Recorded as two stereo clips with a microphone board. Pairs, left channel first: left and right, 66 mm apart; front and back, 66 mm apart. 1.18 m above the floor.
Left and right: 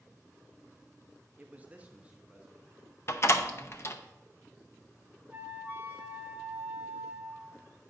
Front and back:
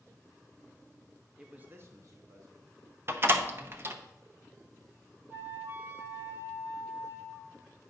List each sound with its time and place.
1.4 s a man speaking: 110° right, 0.6 m; by 2.8 s 165° right, 1.6 m
3.1 s a door slam: 135° left, 0.6 m
5.3 s a flute: 135° right, 1.0 m